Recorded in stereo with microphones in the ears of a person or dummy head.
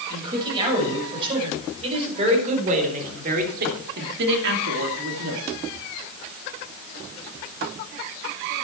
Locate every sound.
0.1 s a man speaking: 25° right (ahead or behind), 6.5 m; by 5.4 s 90° right, 2.5 m